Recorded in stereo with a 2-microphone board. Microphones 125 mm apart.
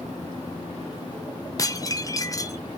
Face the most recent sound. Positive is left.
turn(degrees=30)  # may be behind; listen again after turning